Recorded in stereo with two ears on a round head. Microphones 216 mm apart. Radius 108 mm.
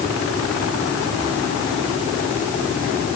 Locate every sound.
Only background noise.